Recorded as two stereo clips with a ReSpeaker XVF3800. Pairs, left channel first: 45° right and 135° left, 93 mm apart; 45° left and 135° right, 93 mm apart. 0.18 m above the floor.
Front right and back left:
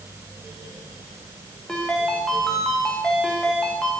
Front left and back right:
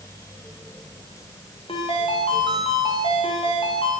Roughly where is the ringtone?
Ahead left.